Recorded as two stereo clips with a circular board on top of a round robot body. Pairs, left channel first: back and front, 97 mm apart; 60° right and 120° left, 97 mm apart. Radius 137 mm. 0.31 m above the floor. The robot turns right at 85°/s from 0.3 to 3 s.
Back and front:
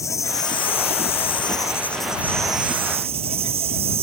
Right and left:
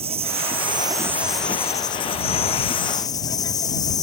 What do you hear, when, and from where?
0.0 s an insect: 120° left; by 4.0 s 10° right